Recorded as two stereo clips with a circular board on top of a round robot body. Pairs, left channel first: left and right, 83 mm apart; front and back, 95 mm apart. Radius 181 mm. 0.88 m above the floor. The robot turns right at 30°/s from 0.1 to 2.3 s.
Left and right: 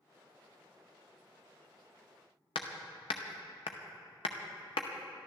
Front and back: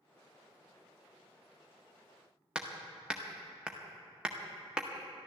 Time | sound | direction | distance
2.5 | hammering | 100° left | 0.7 m